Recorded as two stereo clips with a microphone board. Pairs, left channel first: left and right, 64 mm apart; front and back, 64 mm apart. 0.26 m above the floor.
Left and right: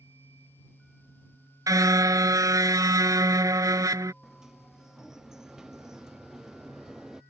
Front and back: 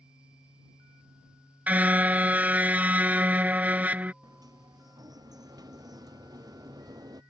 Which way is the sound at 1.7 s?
115° right.